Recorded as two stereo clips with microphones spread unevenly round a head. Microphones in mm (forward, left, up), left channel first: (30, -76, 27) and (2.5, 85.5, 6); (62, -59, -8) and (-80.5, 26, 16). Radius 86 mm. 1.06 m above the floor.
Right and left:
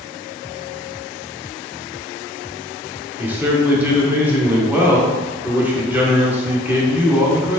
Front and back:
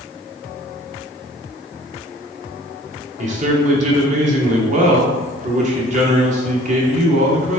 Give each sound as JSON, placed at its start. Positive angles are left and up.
{"t": 3.2, "sound": "a man speaking", "azimuth_deg": 160, "distance_m": 0.8}